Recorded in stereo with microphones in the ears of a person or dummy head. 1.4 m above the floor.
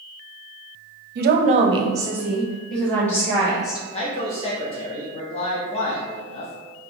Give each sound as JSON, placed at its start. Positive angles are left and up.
{"t": 1.1, "sound": "a woman speaking", "side_deg": -60, "distance_m": 0.6}
{"t": 3.9, "sound": "a man speaking", "side_deg": 30, "distance_m": 0.6}